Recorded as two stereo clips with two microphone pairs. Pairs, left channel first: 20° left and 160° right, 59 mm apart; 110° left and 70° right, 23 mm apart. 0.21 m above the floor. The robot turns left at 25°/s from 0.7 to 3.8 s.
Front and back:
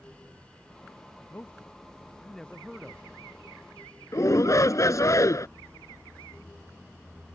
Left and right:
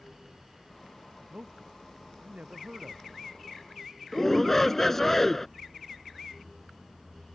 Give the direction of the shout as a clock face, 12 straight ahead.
11 o'clock.